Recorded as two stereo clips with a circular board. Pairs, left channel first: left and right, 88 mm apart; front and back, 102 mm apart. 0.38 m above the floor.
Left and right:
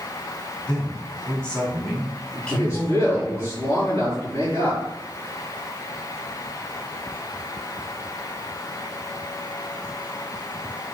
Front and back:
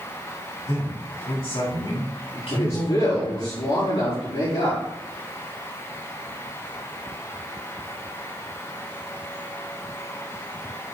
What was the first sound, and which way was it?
A man speaking, 15° left.